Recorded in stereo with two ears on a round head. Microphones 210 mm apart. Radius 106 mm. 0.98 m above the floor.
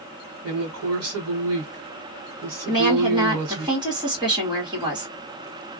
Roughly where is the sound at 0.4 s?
Right.